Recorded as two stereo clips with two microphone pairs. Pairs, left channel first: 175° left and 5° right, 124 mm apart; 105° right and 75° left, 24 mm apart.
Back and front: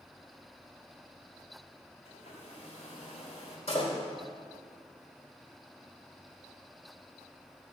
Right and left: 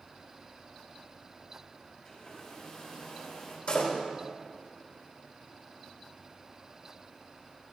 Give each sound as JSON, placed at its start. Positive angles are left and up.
{"t": 2.0, "sound": "a hair dryer", "azimuth_deg": -165, "distance_m": 4.0}
{"t": 3.7, "sound": "a door slam", "azimuth_deg": -155, "distance_m": 3.0}